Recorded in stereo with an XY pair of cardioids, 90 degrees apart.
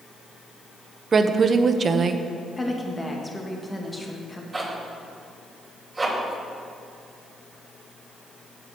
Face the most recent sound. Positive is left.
turn(degrees=-25)